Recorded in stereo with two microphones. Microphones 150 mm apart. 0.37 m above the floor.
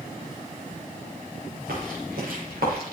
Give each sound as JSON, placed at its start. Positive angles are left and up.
{"t": 1.7, "sound": "footsteps", "side_deg": -75, "distance_m": 6.0}